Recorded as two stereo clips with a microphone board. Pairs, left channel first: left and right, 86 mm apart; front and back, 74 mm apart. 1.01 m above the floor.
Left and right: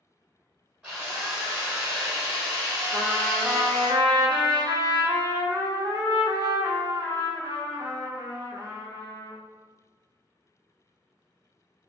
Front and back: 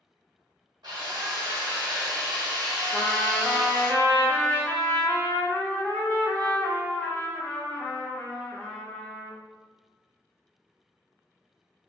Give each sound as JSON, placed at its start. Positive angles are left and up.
{"t": 0.8, "sound": "a drill", "azimuth_deg": -165, "distance_m": 1.4}
{"t": 2.9, "sound": "a trumpet", "azimuth_deg": -70, "distance_m": 0.8}